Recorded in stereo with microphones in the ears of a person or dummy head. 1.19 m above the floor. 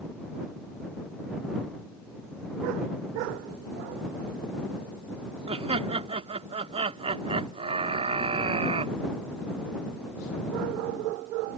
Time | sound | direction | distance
5.5 | laughter | 30° right (ahead or behind) | ?